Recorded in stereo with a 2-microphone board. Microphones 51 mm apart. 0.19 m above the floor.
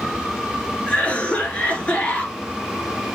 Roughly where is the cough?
Left.